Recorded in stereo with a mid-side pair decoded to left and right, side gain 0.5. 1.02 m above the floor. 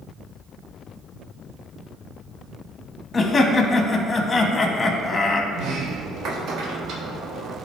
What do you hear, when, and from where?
3.1 s laughter: 30° left, 1.3 m
5.5 s a sliding door: 65° right, 1.2 m